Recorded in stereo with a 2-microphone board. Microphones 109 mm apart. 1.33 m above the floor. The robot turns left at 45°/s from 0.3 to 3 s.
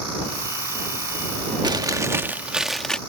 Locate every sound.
1.6 s chewing: 130° right; by 3.0 s 170° left